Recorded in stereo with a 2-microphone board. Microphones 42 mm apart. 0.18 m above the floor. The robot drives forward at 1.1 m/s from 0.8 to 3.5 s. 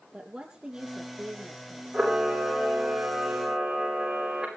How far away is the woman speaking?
About 3.5 m.